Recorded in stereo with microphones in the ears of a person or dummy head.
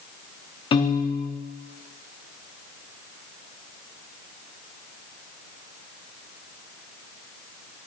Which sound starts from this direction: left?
A piano, at 0.7 s.